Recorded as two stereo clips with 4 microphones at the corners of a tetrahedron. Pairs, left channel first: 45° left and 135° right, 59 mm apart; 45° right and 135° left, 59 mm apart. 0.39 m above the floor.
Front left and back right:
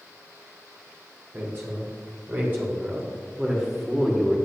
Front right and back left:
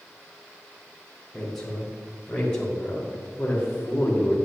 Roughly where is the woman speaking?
Behind right.